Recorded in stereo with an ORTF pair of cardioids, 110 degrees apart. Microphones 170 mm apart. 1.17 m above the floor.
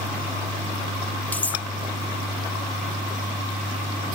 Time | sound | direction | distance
1.3 | cutlery clinking | 10° left | ?